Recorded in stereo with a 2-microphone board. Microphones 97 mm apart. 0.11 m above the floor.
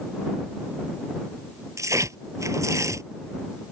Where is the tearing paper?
35° right (ahead or behind).